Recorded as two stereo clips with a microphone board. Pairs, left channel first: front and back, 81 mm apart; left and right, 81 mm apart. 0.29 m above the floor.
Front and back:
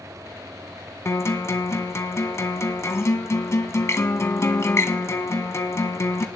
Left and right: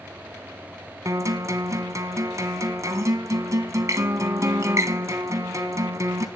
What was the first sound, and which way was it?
A guitar, 50° right.